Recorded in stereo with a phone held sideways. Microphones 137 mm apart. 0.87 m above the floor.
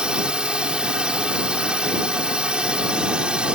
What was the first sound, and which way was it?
A drone, 5° right (ahead or behind).